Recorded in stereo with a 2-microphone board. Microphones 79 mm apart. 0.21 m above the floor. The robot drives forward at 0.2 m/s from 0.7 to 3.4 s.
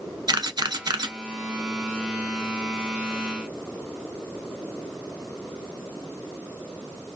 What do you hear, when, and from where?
0.3 s a camera shutter: 60° right (ahead or behind), 0.6 m; by 1.1 s 55° right (ahead or behind), 0.6 m